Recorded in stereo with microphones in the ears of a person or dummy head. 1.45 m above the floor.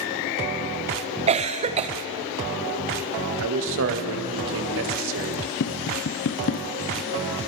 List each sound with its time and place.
1.3 s a cough: 30° right (ahead or behind), 1.0 m
3.4 s a man speaking: 65° right (ahead or behind), 1.8 m
5.6 s tapping: 60° left (ahead or behind), 0.6 m